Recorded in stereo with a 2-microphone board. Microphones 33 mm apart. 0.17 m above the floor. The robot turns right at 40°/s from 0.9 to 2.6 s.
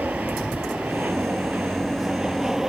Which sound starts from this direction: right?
An aircraft, at 0.0 s.